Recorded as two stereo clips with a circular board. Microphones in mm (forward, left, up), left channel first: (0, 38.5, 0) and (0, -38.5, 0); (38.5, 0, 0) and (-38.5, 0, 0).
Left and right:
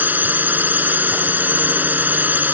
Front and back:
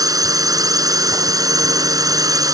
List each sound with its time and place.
0.0 s a drone: 155° right